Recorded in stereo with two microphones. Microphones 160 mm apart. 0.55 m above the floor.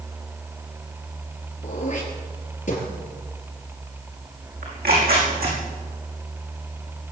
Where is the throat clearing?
50° left (ahead or behind), 5 m.